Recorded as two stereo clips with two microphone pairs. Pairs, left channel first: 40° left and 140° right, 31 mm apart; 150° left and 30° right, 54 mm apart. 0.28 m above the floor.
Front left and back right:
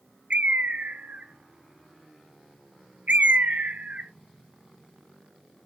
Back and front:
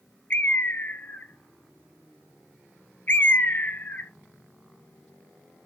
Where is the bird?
160° right, 0.5 m.